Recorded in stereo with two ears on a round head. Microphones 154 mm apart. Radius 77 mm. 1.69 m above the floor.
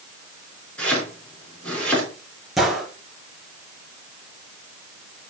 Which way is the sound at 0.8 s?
5° left (ahead or behind).